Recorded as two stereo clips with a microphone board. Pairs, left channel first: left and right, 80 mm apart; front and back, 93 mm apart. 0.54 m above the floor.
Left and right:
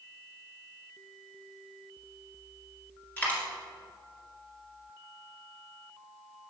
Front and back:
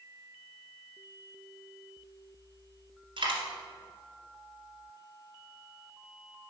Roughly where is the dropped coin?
Behind.